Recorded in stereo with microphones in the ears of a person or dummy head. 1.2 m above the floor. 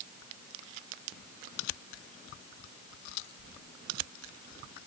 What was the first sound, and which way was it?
Only background noise.